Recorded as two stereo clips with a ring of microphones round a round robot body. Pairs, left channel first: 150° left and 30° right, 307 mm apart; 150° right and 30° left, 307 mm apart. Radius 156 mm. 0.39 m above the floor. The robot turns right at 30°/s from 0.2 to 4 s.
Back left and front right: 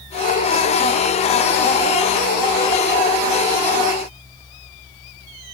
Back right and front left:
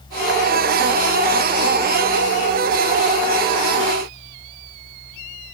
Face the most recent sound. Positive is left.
No sound to turn to.